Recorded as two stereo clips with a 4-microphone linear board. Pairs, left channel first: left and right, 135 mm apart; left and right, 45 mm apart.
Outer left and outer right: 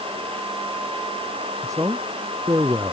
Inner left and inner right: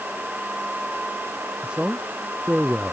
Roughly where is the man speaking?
Right.